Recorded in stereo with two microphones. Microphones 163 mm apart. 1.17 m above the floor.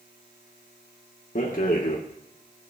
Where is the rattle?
60° left (ahead or behind), 1.5 m.